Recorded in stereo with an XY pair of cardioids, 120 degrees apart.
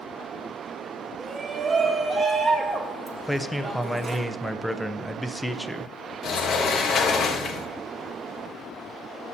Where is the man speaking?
Straight ahead, 0.7 m.